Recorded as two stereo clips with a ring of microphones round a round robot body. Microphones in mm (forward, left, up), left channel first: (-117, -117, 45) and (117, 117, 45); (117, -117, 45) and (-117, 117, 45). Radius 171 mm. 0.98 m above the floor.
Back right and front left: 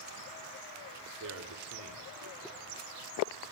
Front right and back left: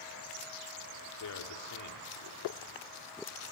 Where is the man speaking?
5° right, 2.5 m.